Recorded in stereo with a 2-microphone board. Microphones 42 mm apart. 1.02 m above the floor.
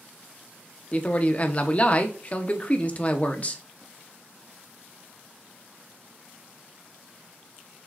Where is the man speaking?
35° left (ahead or behind), 0.7 m.